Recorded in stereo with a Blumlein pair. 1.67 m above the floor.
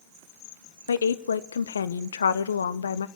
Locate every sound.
0.9 s a woman speaking: 70° left, 0.7 m